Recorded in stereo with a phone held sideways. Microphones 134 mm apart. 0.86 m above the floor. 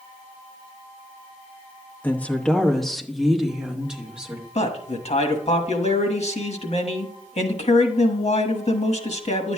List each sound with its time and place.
2.0 s a woman speaking: 15° left (ahead or behind), 0.9 m; by 4.5 s 10° right (ahead or behind), 2.0 m
4.5 s a man speaking: 55° left (ahead or behind), 1.3 m